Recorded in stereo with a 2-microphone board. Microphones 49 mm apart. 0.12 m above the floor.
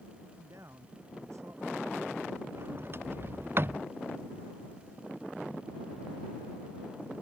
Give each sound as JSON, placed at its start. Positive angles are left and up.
{"t": 0.2, "sound": "a man speaking", "side_deg": -70}
{"t": 2.5, "sound": "a sliding door", "side_deg": -45}